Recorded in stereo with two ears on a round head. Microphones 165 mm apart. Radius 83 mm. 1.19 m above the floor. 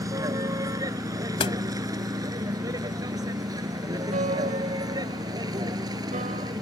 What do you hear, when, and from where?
0.0 s a vehicle: 20° right (ahead or behind)
1.4 s a door slam: 30° left (ahead or behind)
4.1 s a piano: 45° right (ahead or behind)